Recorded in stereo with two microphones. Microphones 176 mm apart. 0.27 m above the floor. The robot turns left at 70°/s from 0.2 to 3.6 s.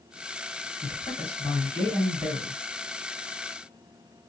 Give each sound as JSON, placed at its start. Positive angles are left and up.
{"t": 0.8, "sound": "a man speaking", "azimuth_deg": 90, "distance_m": 2.0}